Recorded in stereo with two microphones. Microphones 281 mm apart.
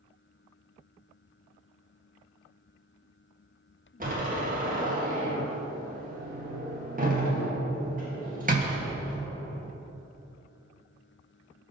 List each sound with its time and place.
4.0 s a door slam: 30° right (ahead or behind), 1.7 m